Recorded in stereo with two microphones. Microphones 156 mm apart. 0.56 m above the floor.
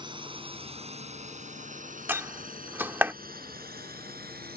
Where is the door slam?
15° right (ahead or behind).